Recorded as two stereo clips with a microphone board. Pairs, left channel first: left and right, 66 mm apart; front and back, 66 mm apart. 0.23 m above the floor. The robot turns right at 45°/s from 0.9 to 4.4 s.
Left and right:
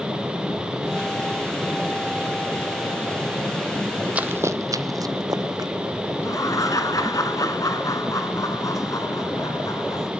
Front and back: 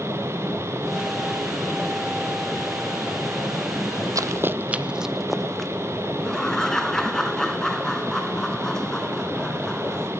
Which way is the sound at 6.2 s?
80° left.